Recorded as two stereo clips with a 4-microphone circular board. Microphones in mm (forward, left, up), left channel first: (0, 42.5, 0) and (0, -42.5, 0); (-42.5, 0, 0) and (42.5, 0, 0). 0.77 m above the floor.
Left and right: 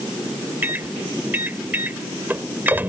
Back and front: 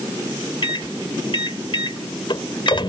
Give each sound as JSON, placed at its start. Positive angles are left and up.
{"t": 0.6, "sound": "a microwave", "azimuth_deg": -160}